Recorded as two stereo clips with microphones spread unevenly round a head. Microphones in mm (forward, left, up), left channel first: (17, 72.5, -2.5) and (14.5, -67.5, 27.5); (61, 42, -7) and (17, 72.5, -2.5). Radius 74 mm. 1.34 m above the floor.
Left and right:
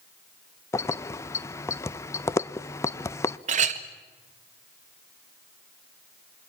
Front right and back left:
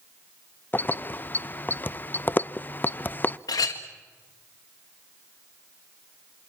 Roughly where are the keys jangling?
Ahead.